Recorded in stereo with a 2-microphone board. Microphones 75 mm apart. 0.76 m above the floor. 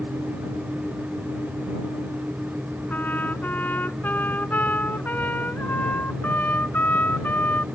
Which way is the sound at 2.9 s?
25° left (ahead or behind).